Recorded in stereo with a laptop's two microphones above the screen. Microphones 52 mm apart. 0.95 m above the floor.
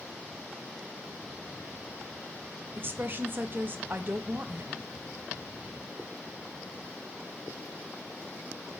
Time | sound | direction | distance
2.8 | a woman speaking | 40° right (ahead or behind) | 0.7 m